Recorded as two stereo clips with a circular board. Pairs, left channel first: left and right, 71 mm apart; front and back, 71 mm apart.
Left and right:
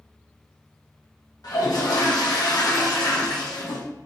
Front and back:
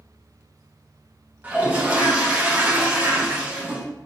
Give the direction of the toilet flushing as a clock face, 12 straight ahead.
8 o'clock.